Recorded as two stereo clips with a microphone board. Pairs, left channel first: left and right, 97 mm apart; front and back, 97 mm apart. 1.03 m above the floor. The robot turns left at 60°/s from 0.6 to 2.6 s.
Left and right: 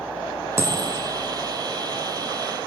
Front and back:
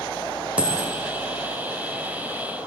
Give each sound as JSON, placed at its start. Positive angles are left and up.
{"t": 0.6, "sound": "a dropped coin", "azimuth_deg": -115, "distance_m": 0.6}